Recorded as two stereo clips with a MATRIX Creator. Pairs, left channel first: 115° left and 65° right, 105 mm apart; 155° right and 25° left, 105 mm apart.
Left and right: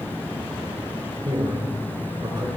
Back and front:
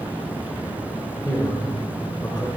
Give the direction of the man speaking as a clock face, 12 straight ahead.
3 o'clock.